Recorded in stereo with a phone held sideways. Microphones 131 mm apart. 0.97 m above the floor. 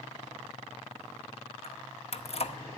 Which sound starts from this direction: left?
Keys jangling, at 1.6 s.